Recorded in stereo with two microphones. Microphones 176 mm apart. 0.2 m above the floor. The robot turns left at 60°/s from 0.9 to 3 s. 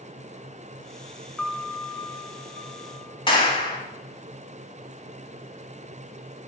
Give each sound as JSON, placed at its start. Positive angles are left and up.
{"t": 1.4, "sound": "a piano", "azimuth_deg": 180, "distance_m": 0.6}
{"t": 3.3, "sound": "a clap", "side_deg": 25, "distance_m": 1.5}